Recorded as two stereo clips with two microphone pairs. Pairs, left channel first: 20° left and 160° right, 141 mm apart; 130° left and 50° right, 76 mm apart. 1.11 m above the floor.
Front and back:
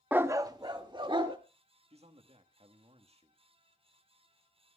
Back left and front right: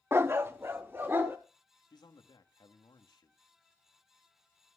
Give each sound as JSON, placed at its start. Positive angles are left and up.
{"t": 0.1, "sound": "a dog barking", "azimuth_deg": -85, "distance_m": 0.5}
{"t": 1.9, "sound": "a man speaking", "azimuth_deg": 155, "distance_m": 1.6}